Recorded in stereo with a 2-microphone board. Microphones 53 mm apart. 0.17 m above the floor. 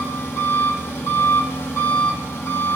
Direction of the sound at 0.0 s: 55° left (ahead or behind).